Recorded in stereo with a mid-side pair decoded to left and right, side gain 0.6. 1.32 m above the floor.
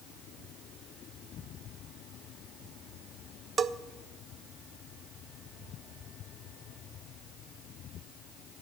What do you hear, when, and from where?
3.6 s a bell: 40° right, 0.6 m